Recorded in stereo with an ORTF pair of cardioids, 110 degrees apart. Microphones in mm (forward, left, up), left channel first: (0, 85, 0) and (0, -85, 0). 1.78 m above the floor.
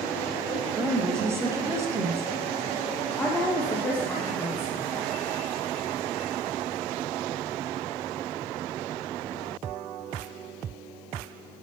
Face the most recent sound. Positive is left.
turn(degrees=10)